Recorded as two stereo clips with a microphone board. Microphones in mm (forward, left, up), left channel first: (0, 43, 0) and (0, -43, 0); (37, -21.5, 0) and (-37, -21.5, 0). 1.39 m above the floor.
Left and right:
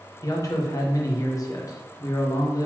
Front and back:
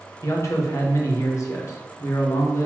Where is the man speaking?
45° left, 1.0 m.